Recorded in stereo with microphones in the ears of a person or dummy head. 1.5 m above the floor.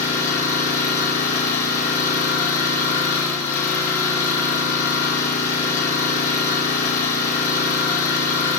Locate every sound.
0.0 s an engine running: 15° left (ahead or behind), 9.5 m